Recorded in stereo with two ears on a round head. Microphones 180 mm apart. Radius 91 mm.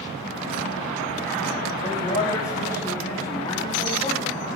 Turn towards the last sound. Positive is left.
turn(degrees=20)  # may be behind; listen again after turning